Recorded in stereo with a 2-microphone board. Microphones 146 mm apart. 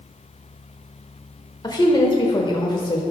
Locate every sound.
1.6 s a woman speaking: 30° left (ahead or behind), 1.1 m